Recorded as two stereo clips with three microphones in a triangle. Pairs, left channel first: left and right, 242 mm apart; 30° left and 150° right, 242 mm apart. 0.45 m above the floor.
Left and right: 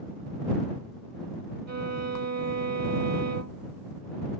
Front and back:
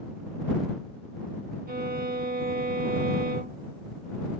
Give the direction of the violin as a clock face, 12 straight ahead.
3 o'clock.